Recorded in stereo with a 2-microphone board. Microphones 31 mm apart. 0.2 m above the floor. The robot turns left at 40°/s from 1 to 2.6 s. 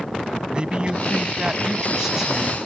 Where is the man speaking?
105° right; by 2.6 s 170° right.